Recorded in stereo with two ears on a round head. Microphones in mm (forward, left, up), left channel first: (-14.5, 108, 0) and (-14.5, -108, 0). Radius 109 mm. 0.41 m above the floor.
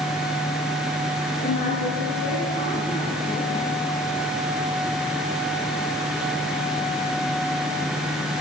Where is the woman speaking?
35° left (ahead or behind), 6.5 m; by 3.7 s 25° left (ahead or behind), 6.5 m.